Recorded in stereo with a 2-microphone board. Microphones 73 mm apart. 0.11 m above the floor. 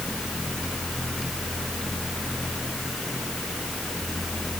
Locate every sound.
Only background noise.